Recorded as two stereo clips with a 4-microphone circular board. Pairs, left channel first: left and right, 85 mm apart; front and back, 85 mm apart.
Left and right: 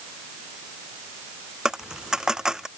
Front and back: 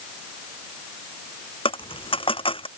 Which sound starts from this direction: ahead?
A dropped coin, at 1.6 s.